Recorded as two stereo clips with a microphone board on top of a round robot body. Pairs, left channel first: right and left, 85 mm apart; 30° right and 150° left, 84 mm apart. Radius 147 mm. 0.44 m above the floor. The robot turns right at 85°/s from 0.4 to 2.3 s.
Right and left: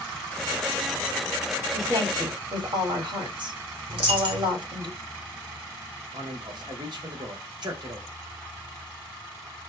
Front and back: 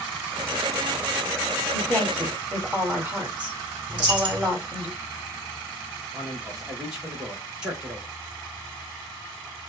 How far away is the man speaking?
About 2.5 m.